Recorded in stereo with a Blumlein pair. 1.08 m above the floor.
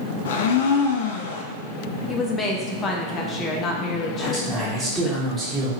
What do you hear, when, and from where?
0.2 s a blender: 50° left, 0.5 m
2.1 s a woman speaking: 25° left, 0.9 m
4.1 s a man speaking: 10° right, 1.9 m